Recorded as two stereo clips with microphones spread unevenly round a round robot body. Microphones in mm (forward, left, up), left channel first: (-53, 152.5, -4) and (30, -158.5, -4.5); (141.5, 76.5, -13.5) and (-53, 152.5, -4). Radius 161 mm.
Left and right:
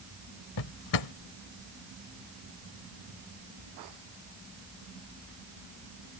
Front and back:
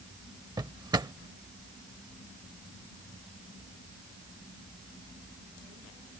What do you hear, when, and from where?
0.6 s a drawer: 85° left